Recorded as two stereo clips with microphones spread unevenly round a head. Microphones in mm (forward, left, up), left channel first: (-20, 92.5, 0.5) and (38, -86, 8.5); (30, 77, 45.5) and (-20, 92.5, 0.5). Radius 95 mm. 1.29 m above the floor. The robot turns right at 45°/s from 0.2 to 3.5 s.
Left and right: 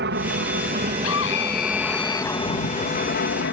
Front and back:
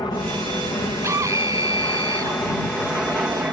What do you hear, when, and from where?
0.0 s an aircraft: 70° right; by 3.5 s 105° left
1.0 s a scream: 130° left; by 2.4 s 170° right